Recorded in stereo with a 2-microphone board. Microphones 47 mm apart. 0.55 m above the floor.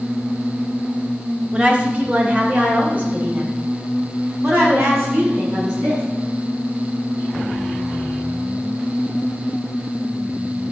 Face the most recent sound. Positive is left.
turn(degrees=-35)  # may be behind; listen again after turning